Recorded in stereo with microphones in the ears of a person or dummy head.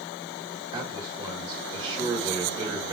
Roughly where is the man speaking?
Right.